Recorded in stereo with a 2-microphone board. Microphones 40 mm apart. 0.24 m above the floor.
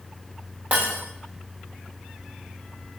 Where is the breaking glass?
50° right (ahead or behind), 5.5 m.